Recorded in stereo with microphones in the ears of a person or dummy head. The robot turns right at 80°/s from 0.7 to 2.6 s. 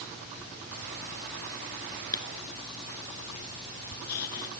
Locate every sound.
2.1 s writing: 20° left (ahead or behind); by 4.5 s 60° left (ahead or behind)